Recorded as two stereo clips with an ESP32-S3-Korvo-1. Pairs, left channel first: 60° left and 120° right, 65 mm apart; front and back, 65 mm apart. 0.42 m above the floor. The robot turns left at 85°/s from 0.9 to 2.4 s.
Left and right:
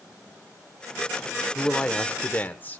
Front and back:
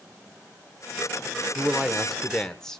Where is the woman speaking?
140° left, 1.1 m; by 2.8 s 70° left, 1.1 m.